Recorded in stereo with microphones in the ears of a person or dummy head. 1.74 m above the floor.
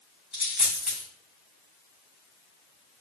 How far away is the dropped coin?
About 2.5 m.